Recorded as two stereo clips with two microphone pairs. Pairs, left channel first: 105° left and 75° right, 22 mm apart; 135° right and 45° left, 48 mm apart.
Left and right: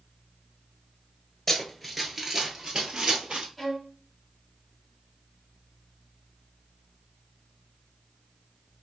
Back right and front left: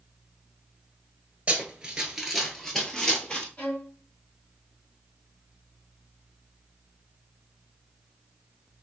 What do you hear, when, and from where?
1.5 s running footsteps: 45° left, 1.0 m; by 3.5 s 70° right, 1.4 m
3.6 s a violin: 165° right, 1.1 m